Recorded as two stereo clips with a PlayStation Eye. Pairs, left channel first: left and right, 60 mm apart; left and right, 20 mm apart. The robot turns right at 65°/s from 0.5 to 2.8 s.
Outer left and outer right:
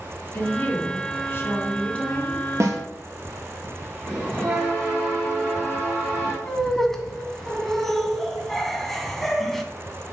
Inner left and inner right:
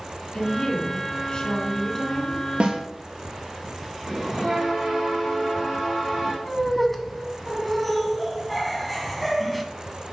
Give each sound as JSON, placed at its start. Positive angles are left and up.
{"t": 0.3, "sound": "a woman speaking", "azimuth_deg": 45, "distance_m": 2.0}
{"t": 2.6, "sound": "a snare drum", "side_deg": -55, "distance_m": 1.4}
{"t": 4.0, "sound": "a bell", "side_deg": -15, "distance_m": 4.0}
{"t": 6.5, "sound": "laughter", "side_deg": 5, "distance_m": 1.2}